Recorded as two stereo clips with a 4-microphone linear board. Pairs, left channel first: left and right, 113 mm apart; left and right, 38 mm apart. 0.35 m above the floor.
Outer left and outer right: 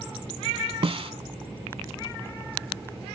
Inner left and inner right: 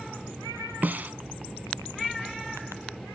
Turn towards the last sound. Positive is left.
turn(degrees=-50)  # may be behind; listen again after turning